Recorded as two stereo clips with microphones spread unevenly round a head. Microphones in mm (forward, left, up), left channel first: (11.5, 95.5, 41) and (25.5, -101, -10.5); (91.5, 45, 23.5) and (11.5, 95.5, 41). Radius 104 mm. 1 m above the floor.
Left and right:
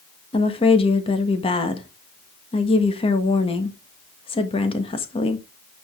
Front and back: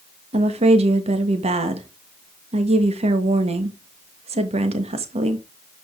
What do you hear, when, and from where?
0.3 s a woman speaking: 165° left, 1.5 m